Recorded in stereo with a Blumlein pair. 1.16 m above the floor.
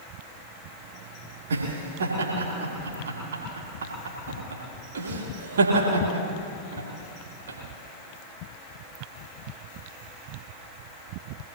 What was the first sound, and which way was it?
Laughter, 65° right.